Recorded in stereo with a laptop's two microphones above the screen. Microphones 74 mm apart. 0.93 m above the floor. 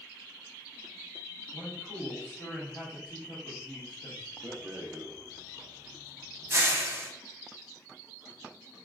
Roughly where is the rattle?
Right.